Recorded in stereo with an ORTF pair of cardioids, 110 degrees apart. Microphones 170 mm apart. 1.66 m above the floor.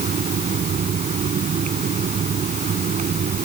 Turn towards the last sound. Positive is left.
turn(degrees=-45)